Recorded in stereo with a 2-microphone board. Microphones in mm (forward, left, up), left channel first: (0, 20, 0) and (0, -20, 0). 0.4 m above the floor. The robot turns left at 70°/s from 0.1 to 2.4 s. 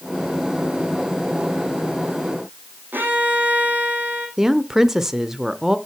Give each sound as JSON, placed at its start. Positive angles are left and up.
{"t": 2.9, "sound": "a violin", "side_deg": -55, "distance_m": 4.5}
{"t": 4.4, "sound": "a woman speaking", "side_deg": -10, "distance_m": 0.8}